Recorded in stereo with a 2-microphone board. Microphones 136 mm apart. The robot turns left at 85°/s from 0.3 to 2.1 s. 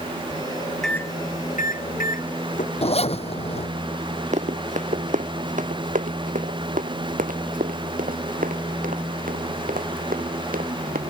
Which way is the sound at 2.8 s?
45° left (ahead or behind).